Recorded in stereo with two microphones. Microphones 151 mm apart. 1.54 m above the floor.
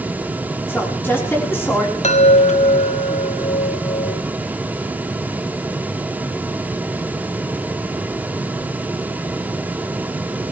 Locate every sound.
0.7 s a woman speaking: 15° left (ahead or behind), 4.5 m
2.0 s a chime: 50° left (ahead or behind), 0.7 m